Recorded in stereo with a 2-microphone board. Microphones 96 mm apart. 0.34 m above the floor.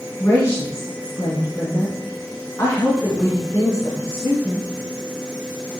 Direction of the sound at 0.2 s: 35° left (ahead or behind).